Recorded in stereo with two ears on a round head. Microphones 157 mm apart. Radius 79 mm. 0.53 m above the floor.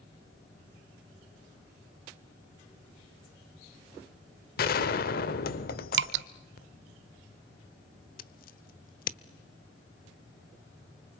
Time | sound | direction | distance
4.6 | a gunshot | 55° left (ahead or behind) | 1.2 m
5.9 | dripping | 70° right (ahead or behind) | 0.9 m
8.2 | scissors | 55° left (ahead or behind) | 0.9 m